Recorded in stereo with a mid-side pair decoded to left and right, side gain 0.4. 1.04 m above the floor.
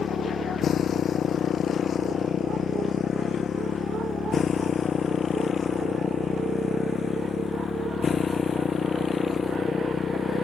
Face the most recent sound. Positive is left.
turn(degrees=45)